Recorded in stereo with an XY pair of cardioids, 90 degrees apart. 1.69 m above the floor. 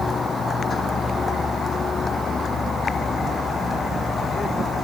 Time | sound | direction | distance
0.0 | a vehicle | 40° left | ?